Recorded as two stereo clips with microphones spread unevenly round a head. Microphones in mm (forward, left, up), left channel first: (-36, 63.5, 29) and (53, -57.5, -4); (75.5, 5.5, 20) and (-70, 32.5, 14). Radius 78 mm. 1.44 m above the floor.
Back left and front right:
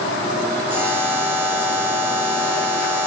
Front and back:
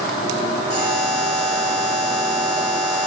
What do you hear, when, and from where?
0.7 s a buzzer: 130° right, 2.0 m